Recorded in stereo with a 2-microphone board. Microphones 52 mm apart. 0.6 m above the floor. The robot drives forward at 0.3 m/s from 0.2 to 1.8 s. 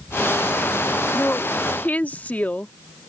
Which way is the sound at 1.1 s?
30° left (ahead or behind).